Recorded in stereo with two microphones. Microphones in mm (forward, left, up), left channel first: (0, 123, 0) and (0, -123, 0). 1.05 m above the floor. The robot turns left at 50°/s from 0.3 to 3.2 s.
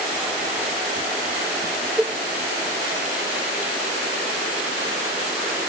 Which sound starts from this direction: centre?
A cowbell, at 2.0 s.